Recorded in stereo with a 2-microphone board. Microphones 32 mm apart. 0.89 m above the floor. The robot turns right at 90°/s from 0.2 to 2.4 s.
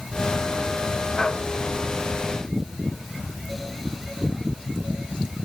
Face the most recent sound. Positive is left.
No sound to turn to.